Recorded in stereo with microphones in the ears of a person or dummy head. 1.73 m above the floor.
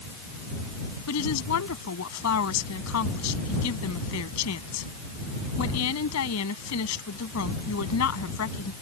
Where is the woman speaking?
85° left.